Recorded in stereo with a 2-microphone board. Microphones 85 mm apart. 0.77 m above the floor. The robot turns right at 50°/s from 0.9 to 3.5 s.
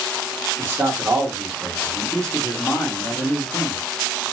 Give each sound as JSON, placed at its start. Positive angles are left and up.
{"t": 0.6, "sound": "a man speaking", "azimuth_deg": -45, "distance_m": 1.4}